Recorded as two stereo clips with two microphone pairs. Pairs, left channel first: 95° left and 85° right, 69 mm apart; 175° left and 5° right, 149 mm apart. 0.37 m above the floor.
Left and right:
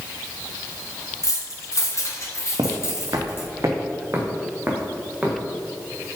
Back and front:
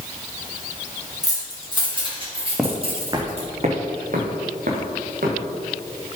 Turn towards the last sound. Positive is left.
turn(degrees=-15)